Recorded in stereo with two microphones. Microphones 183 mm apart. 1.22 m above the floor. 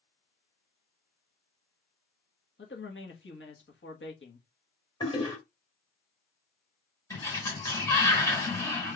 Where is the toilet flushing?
25° left (ahead or behind), 3 m.